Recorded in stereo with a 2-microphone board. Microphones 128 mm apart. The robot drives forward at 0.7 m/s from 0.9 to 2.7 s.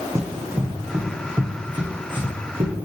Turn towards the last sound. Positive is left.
turn(degrees=-45)  # may be behind; listen again after turning